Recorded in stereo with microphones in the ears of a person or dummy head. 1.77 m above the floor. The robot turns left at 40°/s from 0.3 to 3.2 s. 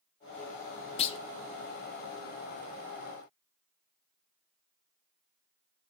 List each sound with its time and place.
1.0 s a clunk: 35° left (ahead or behind), 0.5 m; by 1.2 s 30° left (ahead or behind), 0.5 m